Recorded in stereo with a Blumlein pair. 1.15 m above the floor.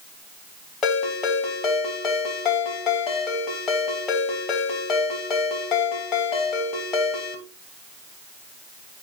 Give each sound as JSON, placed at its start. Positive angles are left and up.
{"t": 0.8, "sound": "a ringtone", "azimuth_deg": 25, "distance_m": 2.5}